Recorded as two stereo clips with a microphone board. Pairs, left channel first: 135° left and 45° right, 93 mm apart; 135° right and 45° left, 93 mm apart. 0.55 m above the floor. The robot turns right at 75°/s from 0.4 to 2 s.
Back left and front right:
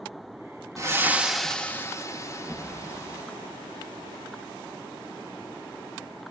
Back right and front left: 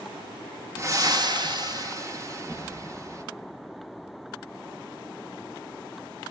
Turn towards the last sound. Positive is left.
turn(degrees=90)